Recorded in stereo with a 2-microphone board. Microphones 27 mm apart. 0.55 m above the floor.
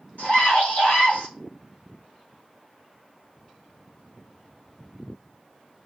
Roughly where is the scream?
Left.